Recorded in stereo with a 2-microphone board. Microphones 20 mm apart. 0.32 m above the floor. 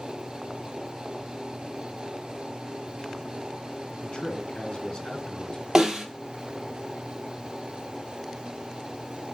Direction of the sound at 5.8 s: 25° right (ahead or behind).